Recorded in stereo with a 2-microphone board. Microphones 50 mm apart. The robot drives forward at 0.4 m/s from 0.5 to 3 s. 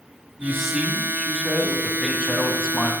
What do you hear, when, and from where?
0.4 s a man speaking: 5° right (ahead or behind), 2 m; by 2.9 s 10° right (ahead or behind), 1.4 m